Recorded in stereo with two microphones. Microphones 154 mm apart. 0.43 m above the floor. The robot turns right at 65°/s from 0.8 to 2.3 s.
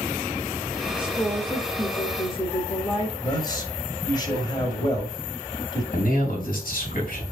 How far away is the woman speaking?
About 1.1 m.